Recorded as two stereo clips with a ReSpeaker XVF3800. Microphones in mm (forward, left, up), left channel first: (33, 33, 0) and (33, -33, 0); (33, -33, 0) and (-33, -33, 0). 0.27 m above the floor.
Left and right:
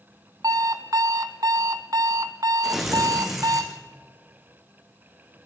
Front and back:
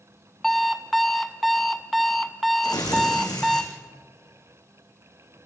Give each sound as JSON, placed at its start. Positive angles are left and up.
{"t": 0.4, "sound": "an alarm clock", "azimuth_deg": -90, "distance_m": 1.2}
{"t": 2.6, "sound": "tearing paper", "azimuth_deg": -5, "distance_m": 4.0}